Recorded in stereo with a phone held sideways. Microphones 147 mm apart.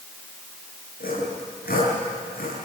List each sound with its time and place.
1.0 s sawing: 85° left, 8 m